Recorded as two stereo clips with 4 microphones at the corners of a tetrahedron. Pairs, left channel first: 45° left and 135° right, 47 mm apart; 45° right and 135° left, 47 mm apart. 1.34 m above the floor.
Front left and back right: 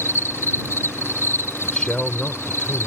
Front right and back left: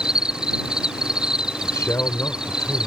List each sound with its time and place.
0.0 s an insect: 65° left
1.6 s a man speaking: 30° right